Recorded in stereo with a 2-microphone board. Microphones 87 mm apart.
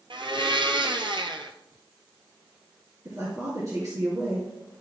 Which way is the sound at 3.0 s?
40° right (ahead or behind).